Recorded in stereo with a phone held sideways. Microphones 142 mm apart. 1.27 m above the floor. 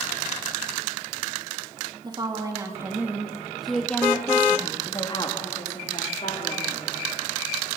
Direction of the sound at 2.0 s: 35° right (ahead or behind).